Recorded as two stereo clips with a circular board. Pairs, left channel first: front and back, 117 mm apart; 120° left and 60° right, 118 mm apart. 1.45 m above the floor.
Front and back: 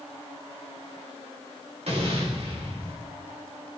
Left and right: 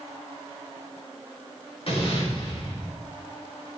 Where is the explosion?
155° left, 4.5 m.